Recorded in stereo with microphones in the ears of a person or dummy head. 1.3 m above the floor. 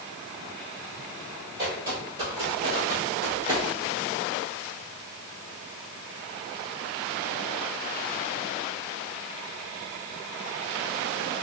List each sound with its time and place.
1.6 s footsteps: 25° right (ahead or behind), 1.9 m; by 3.6 s 30° right (ahead or behind), 1.4 m